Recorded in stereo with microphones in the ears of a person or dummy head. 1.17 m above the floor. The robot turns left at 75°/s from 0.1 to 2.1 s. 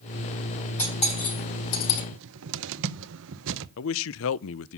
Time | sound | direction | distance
0.8 | cutlery clinking | 10° left (ahead or behind) | 5 m
2.1 | a cupboard door | 65° right (ahead or behind) | 0.7 m
3.8 | a man speaking | 65° left (ahead or behind) | 0.5 m